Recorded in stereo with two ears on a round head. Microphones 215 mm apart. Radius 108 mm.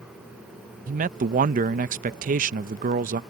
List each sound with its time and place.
0.9 s a man speaking: 35° right (ahead or behind)